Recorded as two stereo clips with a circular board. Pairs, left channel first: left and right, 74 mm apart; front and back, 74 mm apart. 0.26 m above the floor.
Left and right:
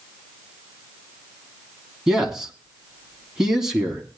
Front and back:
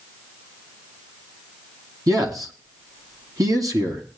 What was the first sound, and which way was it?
A man speaking, 170° right.